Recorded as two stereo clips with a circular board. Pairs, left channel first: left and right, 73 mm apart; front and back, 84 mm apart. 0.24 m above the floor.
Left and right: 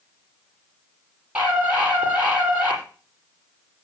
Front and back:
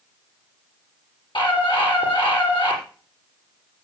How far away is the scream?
About 6.5 m.